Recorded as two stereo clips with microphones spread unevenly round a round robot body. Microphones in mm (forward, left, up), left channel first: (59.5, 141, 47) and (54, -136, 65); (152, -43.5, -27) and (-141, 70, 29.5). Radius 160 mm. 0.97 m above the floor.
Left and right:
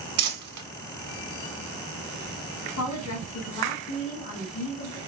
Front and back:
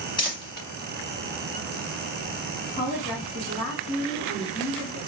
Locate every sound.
0.2 s crumpling: 90° right, 1.3 m
2.8 s a woman speaking: 55° left, 1.9 m